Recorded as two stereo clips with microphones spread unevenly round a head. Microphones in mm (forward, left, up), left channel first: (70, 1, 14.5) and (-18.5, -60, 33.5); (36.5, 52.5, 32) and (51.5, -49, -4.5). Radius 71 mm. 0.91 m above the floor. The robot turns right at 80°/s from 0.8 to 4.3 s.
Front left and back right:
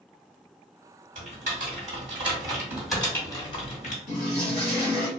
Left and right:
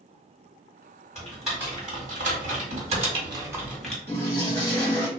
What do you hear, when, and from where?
1.1 s typing on a keyboard: 160° left, 1.5 m; by 4.0 s 25° left, 1.5 m
4.1 s a toilet flushing: 60° left, 1.2 m; by 5.1 s 75° left, 1.2 m